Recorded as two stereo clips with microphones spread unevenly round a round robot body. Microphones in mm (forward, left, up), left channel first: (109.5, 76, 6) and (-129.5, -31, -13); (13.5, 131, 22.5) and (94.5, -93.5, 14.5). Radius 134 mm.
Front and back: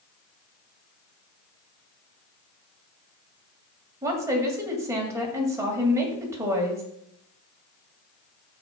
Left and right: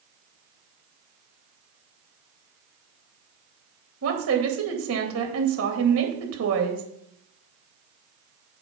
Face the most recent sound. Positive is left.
turn(degrees=-80)